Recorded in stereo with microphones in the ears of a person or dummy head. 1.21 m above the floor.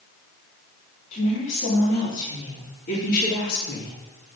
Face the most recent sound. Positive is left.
turn(degrees=55)  # may be behind; listen again after turning